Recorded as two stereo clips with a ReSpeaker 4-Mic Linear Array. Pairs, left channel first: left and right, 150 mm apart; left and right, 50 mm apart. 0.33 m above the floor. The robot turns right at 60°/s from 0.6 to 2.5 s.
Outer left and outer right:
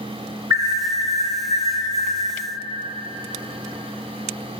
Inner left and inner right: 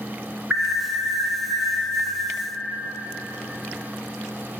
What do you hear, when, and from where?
0.5 s an alarm: 145° right, 1.5 m; by 2.2 s 45° right, 1.5 m